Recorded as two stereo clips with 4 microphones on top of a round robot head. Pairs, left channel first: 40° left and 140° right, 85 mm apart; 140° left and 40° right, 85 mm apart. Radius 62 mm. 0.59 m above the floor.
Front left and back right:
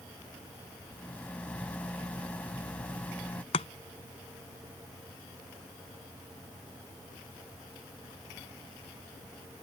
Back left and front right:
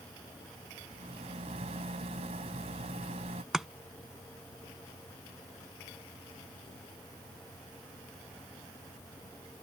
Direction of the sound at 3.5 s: 45° left.